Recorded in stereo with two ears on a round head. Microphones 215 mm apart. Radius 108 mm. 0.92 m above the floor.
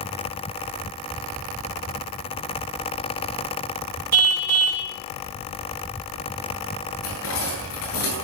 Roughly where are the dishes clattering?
Left.